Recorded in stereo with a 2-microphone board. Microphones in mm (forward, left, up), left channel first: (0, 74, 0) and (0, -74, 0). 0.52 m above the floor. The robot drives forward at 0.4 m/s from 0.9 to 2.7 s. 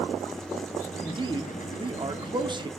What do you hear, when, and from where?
1.0 s a man speaking: 30° right (ahead or behind), 0.9 m